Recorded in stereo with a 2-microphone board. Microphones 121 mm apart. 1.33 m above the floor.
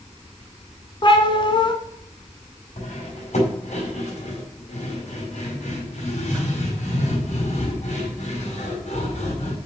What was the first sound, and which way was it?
A cat meowing, 40° left (ahead or behind).